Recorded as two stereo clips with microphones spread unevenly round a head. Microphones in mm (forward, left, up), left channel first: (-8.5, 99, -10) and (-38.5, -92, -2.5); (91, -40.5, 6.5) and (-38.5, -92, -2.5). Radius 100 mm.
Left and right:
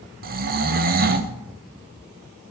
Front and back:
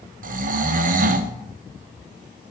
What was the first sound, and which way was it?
Snoring, 140° right.